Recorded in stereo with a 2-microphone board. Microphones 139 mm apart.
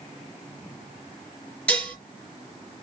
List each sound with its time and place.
1.7 s dishes clattering: 10° left (ahead or behind), 3.5 m